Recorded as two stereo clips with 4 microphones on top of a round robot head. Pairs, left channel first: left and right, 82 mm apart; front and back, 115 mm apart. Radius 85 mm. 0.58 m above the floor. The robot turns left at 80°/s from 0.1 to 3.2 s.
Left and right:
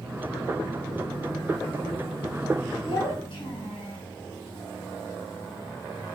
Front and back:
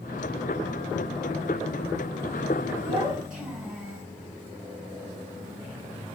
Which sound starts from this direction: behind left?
A child speaking, at 2.8 s.